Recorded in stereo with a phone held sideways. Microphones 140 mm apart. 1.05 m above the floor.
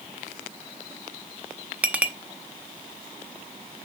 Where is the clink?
10° right (ahead or behind), 0.7 m.